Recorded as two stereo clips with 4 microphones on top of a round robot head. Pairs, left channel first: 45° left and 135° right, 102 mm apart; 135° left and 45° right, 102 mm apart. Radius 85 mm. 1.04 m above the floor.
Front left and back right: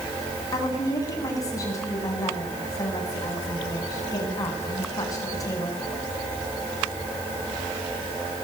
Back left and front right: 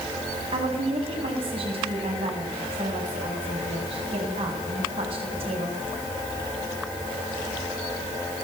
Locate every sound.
0.5 s a woman speaking: 15° right, 8.5 m